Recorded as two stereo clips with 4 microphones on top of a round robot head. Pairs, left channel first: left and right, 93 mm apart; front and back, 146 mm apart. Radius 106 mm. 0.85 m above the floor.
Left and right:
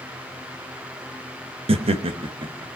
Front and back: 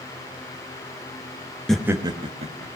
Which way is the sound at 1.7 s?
85° right.